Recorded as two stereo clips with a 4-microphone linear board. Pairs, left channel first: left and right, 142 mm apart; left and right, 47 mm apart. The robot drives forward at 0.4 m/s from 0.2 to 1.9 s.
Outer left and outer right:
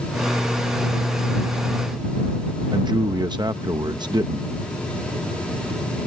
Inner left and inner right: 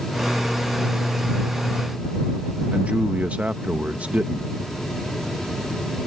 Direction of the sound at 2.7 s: 30° right (ahead or behind).